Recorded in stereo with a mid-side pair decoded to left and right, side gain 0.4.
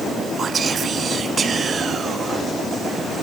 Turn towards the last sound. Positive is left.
turn(degrees=-50)